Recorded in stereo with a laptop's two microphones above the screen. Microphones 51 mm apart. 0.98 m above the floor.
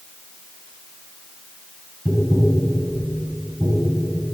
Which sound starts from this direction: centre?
Tapping, at 2.0 s.